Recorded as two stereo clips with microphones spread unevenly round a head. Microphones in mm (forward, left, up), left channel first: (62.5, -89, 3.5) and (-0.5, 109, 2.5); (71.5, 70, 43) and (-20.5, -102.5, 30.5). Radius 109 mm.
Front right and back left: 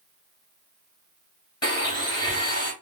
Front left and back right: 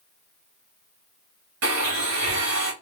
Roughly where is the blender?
Behind right.